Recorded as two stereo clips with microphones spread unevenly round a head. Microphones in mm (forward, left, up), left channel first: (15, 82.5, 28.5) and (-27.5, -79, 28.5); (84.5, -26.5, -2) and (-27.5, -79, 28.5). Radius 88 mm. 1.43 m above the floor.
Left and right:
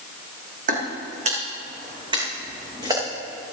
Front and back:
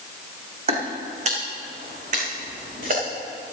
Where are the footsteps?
140° right, 3 m; by 3.0 s 175° right, 5 m.